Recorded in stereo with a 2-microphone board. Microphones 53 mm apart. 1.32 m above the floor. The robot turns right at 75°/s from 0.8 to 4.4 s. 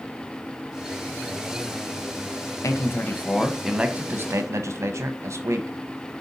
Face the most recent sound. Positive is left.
turn(degrees=-120)